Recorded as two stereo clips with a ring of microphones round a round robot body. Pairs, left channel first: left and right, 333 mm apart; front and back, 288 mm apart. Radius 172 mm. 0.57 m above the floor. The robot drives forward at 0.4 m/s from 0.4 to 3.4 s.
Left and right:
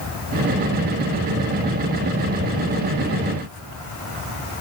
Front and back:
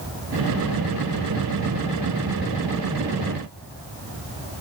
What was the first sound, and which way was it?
Only background noise.